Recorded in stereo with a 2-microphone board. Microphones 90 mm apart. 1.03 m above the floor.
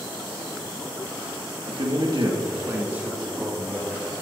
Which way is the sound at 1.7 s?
65° right (ahead or behind).